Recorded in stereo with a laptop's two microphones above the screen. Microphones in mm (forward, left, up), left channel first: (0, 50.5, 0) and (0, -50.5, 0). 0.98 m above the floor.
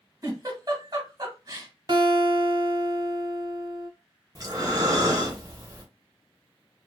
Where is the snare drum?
No snare drum in this recording.